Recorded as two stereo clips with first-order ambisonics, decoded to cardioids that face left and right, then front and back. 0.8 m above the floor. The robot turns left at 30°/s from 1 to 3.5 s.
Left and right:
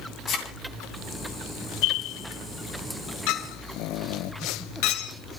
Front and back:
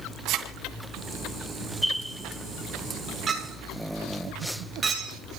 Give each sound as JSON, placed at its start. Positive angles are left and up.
{"t": 0.3, "sound": "a thud", "azimuth_deg": 140, "distance_m": 2.5}
{"t": 3.3, "sound": "a clink", "azimuth_deg": 110, "distance_m": 2.0}